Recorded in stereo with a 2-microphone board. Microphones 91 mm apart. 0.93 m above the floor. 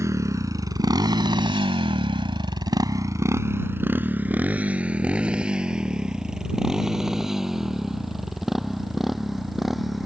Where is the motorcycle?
35° right (ahead or behind); by 10.1 s centre (ahead or behind).